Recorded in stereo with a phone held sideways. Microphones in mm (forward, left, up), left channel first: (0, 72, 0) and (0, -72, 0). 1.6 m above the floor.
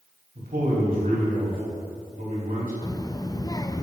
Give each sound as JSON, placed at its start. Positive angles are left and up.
{"t": 0.3, "sound": "a man speaking", "side_deg": -80, "distance_m": 3.5}
{"t": 2.8, "sound": "a child speaking", "side_deg": 25, "distance_m": 0.5}